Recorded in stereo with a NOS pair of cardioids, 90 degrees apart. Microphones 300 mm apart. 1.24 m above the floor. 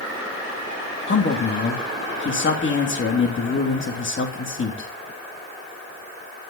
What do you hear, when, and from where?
1.1 s a man speaking: 40° left, 3 m